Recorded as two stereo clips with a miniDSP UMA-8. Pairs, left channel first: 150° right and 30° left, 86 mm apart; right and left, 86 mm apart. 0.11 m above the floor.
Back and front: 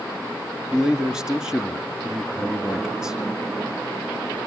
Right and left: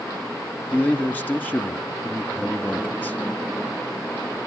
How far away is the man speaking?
About 1.4 m.